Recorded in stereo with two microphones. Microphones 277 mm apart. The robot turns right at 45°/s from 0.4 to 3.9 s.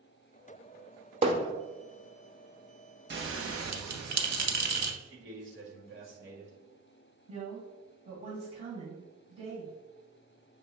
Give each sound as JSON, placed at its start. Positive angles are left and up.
{"t": 1.2, "sound": "hammering", "side_deg": -20, "distance_m": 0.6}
{"t": 3.1, "sound": "a bell", "side_deg": -40, "distance_m": 0.6}
{"t": 5.0, "sound": "a man speaking", "side_deg": -45, "distance_m": 1.2}
{"t": 7.3, "sound": "a woman speaking", "side_deg": -25, "distance_m": 2.0}